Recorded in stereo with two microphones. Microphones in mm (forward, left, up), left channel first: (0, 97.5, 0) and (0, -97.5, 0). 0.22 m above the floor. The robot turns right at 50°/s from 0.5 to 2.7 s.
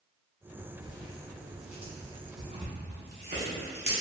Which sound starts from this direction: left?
Tearing paper, at 0.8 s.